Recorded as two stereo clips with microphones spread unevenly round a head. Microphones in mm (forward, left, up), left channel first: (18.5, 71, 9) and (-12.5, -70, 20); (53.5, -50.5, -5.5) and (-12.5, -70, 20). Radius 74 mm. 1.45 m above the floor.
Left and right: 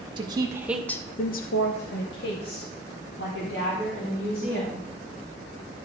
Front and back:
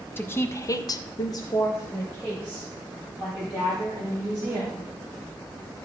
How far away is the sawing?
No sawing in this recording.